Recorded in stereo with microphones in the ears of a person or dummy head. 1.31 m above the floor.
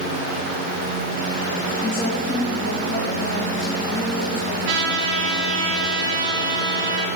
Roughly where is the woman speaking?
Left.